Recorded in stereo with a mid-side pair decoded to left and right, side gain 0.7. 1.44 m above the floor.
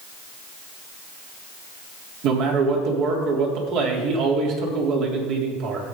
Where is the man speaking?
60° right, 3.5 m.